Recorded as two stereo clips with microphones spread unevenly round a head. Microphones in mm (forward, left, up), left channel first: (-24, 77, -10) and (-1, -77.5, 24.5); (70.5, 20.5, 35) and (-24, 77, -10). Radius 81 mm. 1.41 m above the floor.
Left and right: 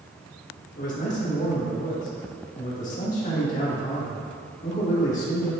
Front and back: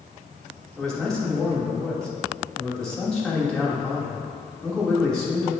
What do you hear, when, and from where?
0.8 s a man speaking: 55° left, 2.5 m